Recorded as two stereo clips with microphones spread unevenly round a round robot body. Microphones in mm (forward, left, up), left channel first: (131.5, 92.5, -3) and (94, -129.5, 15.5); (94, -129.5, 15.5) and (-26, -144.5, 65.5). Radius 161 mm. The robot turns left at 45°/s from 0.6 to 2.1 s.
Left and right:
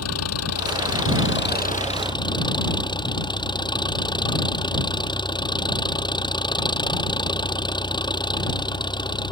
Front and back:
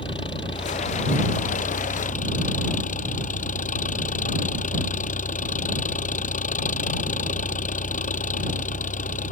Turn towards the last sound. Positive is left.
turn(degrees=10)